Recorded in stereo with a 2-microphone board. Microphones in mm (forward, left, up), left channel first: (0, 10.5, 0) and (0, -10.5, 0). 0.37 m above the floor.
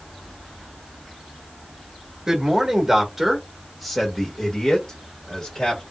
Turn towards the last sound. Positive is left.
turn(degrees=40)  # may be behind; listen again after turning